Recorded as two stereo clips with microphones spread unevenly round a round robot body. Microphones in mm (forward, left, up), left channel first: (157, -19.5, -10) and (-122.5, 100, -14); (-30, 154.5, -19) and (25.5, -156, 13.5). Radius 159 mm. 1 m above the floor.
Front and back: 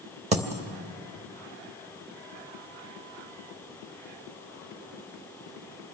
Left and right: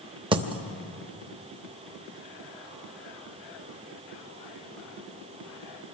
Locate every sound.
0.3 s a dropped coin: 140° right, 0.8 m